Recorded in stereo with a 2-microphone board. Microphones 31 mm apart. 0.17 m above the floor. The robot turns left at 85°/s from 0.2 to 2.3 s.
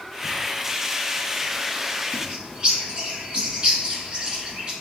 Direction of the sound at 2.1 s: 45° right (ahead or behind).